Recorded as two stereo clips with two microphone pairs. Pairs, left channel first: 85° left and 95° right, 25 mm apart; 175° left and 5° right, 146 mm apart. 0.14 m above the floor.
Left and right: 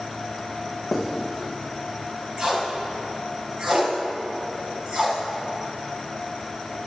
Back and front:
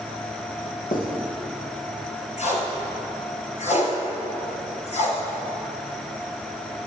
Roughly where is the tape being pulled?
Behind right.